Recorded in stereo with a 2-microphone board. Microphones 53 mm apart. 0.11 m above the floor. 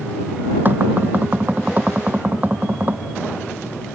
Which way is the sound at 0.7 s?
35° right (ahead or behind).